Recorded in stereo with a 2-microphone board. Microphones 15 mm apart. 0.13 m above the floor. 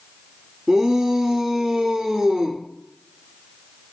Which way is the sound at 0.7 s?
40° right (ahead or behind).